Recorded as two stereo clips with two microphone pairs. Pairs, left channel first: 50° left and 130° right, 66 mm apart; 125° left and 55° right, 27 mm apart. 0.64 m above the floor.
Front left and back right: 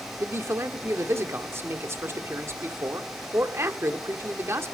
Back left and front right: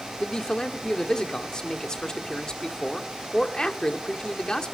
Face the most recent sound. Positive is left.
turn(degrees=-175)